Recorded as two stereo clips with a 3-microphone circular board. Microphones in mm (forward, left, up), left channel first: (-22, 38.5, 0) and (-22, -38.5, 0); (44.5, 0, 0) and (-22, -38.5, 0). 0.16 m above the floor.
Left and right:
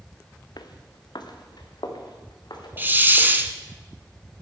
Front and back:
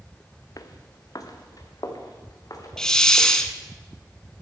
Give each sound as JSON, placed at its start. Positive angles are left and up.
{"t": 0.6, "sound": "footsteps", "azimuth_deg": 65, "distance_m": 1.5}
{"t": 2.8, "sound": "a hiss", "azimuth_deg": -45, "distance_m": 1.0}